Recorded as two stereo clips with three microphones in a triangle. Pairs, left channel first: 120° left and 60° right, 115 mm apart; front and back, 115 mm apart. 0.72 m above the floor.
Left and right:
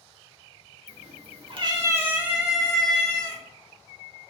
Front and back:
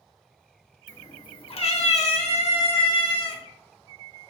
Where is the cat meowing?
65° right, 0.8 m; by 3.4 s 40° left, 1.7 m.